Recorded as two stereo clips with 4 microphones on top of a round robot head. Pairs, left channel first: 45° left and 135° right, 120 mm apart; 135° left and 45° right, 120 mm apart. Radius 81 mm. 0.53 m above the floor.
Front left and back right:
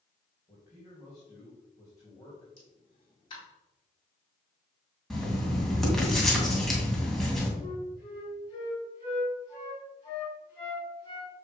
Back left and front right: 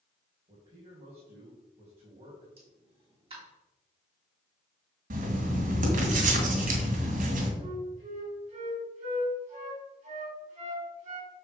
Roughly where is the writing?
Ahead right.